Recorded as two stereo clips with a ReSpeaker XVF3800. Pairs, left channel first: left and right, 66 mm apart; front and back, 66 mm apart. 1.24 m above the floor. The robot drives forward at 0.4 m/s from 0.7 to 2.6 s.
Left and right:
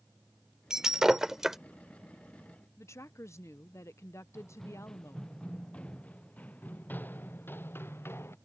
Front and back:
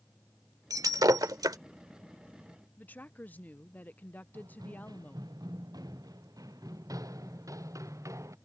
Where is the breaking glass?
170° right.